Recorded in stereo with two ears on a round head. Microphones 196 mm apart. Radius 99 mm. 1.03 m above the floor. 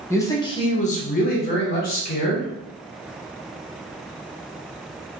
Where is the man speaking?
10° left (ahead or behind), 0.7 m; by 2.5 s 40° left (ahead or behind), 1.1 m.